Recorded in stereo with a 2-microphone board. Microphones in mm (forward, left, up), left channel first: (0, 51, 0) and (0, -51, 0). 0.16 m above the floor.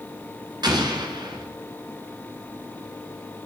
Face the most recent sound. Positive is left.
turn(degrees=-45)  # may be behind; listen again after turning